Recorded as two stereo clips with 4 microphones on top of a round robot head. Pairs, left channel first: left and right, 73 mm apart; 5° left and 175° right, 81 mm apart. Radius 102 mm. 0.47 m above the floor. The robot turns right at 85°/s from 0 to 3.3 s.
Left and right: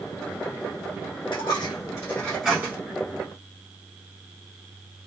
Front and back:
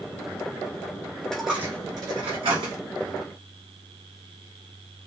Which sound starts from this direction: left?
A dropped coin, at 1.3 s.